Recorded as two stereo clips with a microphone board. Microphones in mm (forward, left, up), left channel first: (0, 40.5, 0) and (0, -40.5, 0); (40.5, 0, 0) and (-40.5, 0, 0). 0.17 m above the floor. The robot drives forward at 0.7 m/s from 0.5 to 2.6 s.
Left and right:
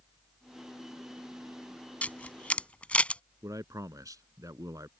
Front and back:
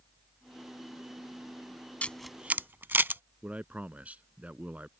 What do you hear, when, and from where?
2.0 s a camera shutter: 45° left; by 3.2 s 145° left
3.4 s a man speaking: 110° right